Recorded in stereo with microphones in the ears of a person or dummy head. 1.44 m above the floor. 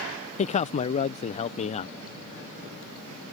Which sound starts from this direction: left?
A man speaking, at 0.4 s.